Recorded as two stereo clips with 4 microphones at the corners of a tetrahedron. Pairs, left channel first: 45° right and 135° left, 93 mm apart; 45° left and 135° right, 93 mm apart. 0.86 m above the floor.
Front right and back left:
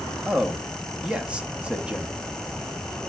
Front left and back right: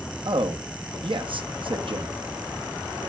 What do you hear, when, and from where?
0.2 s a man speaking: 145° right, 1.0 m